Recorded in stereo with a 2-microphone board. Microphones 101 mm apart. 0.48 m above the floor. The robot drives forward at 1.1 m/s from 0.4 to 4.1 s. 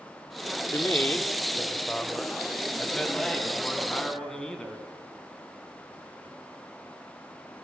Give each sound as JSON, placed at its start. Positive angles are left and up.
{"t": 0.7, "sound": "a man speaking", "side_deg": 25, "distance_m": 0.8}